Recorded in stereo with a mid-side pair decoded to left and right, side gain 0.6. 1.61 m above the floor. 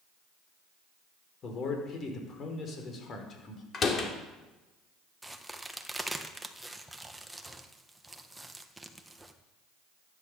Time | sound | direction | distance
1.4 | a man speaking | 45° left | 5 m
3.7 | a door slam | 35° left | 3 m
5.2 | a crack | 5° right | 1.6 m